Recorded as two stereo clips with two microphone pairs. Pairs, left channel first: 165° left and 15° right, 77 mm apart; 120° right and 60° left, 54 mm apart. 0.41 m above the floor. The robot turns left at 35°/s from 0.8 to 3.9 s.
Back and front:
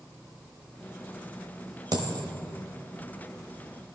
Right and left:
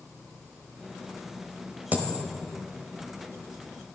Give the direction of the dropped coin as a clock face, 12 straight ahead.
12 o'clock.